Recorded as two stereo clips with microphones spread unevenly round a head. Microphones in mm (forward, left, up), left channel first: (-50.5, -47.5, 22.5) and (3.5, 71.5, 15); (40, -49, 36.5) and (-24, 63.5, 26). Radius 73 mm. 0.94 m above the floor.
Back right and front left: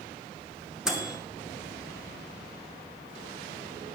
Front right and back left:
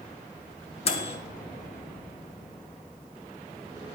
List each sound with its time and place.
0.8 s a microwave: 20° right, 2 m